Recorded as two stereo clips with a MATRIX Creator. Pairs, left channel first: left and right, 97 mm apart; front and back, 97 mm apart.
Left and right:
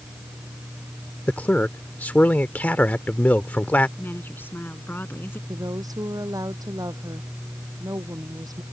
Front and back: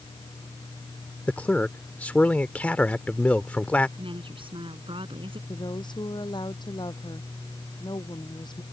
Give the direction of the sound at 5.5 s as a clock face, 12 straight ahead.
1 o'clock.